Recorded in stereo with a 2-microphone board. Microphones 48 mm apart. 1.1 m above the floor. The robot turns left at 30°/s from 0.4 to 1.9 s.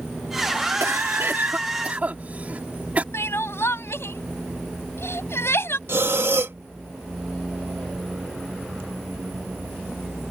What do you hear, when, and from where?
0.8 s a cough: 65° right (ahead or behind); by 3.0 s 30° right (ahead or behind)
3.1 s crying: 60° left (ahead or behind)
5.9 s breathing: 55° right (ahead or behind)